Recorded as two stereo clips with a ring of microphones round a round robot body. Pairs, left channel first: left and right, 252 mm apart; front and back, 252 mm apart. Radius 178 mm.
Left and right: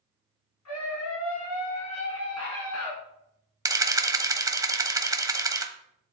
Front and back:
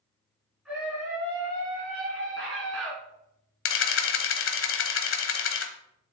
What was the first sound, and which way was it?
A scream, 90° left.